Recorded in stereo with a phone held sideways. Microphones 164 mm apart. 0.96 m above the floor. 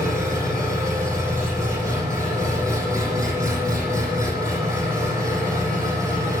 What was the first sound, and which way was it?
An engine running, 20° right (ahead or behind).